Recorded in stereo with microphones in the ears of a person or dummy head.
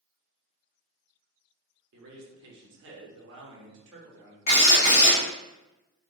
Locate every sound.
1.9 s a man speaking: 50° right (ahead or behind), 0.7 m
4.5 s a drill: 45° left (ahead or behind), 1.6 m